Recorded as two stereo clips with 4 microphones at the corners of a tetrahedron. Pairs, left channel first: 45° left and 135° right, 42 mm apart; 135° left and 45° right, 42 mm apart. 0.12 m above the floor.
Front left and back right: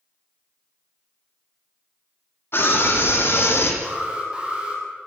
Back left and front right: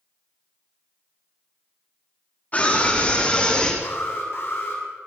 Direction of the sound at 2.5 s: 80° left.